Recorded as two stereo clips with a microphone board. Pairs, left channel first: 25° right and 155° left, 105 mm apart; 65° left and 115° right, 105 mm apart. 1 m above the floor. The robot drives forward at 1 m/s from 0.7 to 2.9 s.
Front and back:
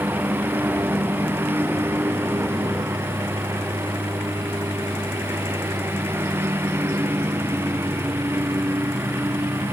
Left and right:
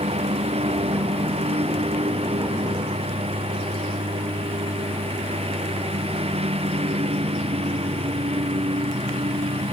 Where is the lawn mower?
130° right; by 9.7 s 135° right.